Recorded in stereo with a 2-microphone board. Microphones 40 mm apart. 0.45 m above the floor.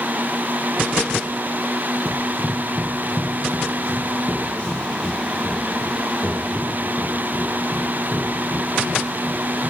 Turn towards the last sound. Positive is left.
turn(degrees=35)  # may be behind; listen again after turning